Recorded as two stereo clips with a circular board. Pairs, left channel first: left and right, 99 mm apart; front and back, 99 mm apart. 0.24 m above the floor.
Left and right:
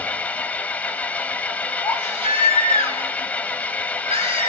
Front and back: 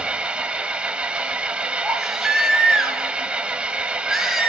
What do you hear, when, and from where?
0.0 s an engine running: 125° left, 0.7 m
1.8 s a baby crying: 90° right, 3.5 m